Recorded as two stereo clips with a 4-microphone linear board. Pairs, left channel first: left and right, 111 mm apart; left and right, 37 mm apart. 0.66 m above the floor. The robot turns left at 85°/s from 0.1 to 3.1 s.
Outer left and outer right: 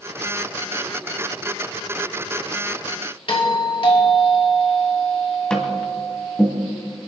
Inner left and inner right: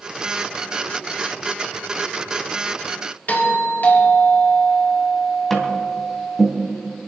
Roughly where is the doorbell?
Left.